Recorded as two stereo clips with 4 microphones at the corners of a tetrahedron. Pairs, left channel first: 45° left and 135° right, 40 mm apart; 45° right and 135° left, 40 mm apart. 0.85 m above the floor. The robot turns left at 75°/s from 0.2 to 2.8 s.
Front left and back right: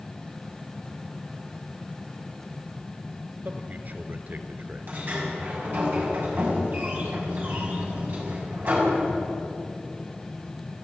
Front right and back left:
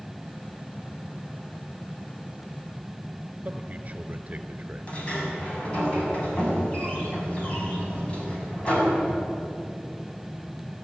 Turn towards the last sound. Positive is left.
turn(degrees=-100)